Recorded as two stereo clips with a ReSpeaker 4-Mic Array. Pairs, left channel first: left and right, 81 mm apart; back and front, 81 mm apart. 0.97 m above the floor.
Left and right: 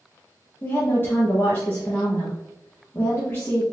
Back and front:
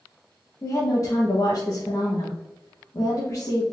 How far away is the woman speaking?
About 1.0 m.